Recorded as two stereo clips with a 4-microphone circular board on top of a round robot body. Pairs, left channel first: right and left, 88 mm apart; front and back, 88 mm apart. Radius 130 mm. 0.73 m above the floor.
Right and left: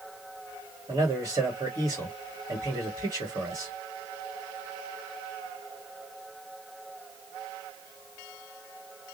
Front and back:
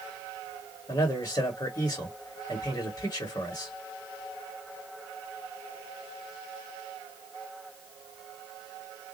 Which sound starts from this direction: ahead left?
A man speaking, at 0.9 s.